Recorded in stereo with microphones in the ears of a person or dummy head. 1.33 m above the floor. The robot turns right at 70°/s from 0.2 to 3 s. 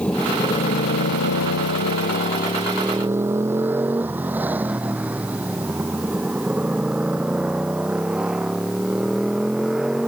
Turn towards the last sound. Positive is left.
turn(degrees=0)  # may be behind; listen again after turning